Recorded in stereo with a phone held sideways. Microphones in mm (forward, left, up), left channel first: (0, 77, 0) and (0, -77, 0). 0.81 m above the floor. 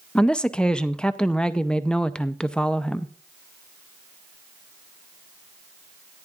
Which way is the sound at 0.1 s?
5° left (ahead or behind).